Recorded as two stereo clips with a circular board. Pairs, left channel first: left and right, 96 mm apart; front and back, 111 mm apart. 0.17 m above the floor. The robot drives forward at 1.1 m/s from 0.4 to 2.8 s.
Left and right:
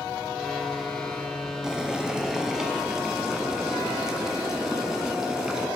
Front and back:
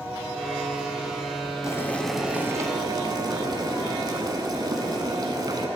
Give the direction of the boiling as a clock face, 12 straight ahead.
12 o'clock.